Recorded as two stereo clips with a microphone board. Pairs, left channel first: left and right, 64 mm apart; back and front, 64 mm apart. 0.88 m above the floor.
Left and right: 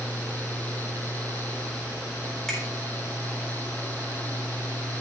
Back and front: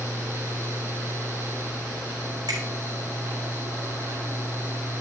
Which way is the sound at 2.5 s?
10° left.